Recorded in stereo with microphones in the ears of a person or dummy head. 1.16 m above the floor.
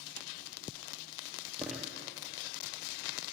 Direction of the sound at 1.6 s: Centre (ahead or behind).